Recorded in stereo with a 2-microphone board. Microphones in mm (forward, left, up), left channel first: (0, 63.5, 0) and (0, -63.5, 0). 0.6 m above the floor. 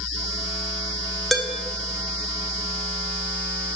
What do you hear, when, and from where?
1.3 s dishes clattering: centre (ahead or behind), 0.5 m